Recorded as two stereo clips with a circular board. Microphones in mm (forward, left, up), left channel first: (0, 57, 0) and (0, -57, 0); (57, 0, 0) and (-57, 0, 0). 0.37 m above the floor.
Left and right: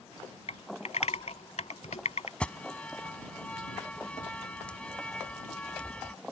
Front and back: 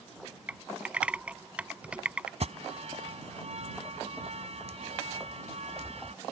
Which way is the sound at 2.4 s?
170° left.